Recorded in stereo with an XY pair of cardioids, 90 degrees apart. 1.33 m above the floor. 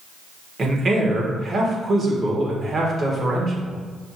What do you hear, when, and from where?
0.6 s a man speaking: 45° right, 1.6 m